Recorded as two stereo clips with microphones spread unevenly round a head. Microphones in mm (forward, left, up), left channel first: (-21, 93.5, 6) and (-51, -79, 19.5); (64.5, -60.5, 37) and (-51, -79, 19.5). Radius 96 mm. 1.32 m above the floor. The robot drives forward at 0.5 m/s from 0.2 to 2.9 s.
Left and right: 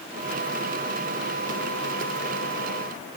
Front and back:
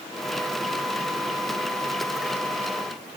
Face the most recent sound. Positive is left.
No sound to turn to.